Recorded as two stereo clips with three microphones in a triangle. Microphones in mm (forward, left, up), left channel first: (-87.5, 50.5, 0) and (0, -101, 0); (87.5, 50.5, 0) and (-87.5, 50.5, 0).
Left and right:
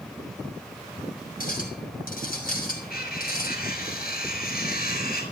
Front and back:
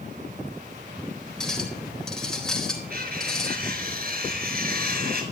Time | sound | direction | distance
1.4 | a clink | 85° left | 4 m
2.9 | cutlery clinking | 145° left | 6 m